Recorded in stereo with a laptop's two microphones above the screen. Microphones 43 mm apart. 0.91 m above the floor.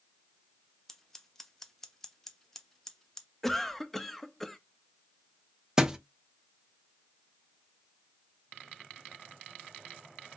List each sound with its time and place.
0.9 s scissors: 10° left (ahead or behind), 0.8 m
3.4 s a cough: 5° left (ahead or behind), 0.9 m
5.8 s a thud: 15° right (ahead or behind), 0.6 m